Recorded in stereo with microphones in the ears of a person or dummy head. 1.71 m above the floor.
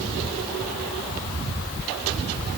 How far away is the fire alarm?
No fire alarm in this recording.